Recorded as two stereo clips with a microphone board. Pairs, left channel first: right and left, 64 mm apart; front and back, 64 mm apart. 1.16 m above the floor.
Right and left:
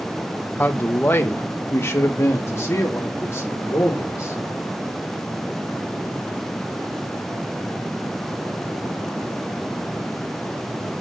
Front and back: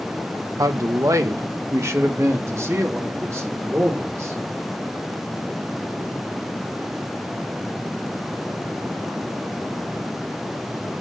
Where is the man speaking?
150° right, 0.9 m; by 4.4 s 135° right, 4 m.